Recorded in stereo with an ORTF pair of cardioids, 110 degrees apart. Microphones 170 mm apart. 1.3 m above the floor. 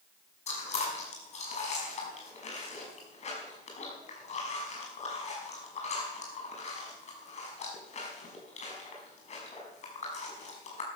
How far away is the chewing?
About 6 m.